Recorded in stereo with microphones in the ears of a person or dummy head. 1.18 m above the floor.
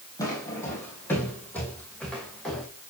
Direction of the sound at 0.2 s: 20° left (ahead or behind).